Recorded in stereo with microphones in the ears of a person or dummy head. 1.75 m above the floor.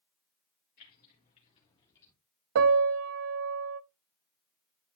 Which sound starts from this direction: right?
A piano, at 2.5 s.